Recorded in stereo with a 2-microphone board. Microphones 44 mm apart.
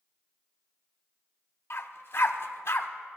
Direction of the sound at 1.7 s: 60° left (ahead or behind).